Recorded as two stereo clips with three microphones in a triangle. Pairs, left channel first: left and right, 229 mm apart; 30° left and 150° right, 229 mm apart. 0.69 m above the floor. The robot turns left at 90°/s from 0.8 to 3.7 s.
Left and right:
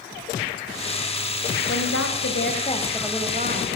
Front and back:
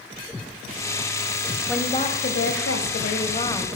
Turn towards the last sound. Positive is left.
turn(degrees=-60)